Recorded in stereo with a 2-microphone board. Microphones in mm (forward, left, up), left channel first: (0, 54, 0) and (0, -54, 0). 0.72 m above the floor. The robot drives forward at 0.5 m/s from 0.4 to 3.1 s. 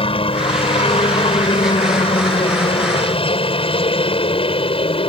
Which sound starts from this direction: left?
A helicopter, at 0.0 s.